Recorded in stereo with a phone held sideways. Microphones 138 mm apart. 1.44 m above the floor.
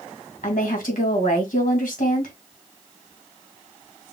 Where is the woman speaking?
85° left, 2 m.